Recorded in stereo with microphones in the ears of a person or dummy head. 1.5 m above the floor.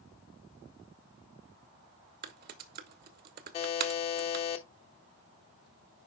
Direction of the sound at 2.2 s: 50° right (ahead or behind).